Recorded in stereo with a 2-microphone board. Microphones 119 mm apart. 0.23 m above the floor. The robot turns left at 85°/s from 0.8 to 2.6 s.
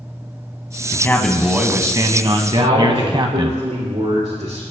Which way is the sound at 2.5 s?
70° right (ahead or behind).